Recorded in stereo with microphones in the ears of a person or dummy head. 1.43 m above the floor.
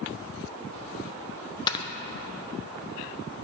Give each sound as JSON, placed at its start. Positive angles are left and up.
{"t": 1.7, "sound": "snoring", "side_deg": 25, "distance_m": 0.8}